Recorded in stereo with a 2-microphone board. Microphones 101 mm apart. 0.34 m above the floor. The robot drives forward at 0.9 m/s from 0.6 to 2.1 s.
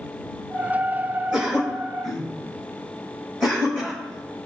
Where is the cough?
5° right (ahead or behind), 4.5 m.